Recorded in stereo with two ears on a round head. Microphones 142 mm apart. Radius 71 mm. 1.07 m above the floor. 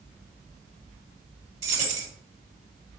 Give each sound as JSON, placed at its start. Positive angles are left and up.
{"t": 1.6, "sound": "keys jangling", "side_deg": -50, "distance_m": 1.6}